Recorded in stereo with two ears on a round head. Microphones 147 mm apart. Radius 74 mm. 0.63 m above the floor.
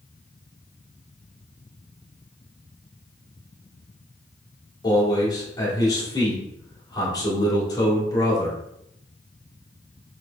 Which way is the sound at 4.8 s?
25° left (ahead or behind).